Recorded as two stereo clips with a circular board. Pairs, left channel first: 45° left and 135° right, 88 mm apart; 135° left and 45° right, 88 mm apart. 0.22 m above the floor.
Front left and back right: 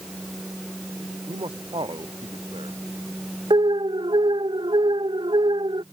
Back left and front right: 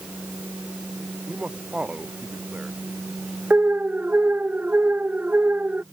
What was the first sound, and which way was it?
A man speaking, 120° right.